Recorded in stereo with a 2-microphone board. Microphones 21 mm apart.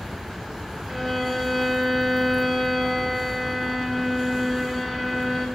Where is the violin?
15° left (ahead or behind), 2.5 m.